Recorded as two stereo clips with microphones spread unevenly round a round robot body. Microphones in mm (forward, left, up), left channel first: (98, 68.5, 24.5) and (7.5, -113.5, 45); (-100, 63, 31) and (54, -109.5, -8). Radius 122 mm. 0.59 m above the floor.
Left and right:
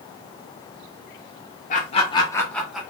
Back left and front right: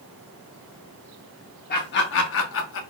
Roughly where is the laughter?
Left.